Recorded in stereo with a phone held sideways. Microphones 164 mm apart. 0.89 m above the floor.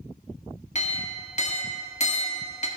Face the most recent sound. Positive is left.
turn(degrees=45)  # may be behind; listen again after turning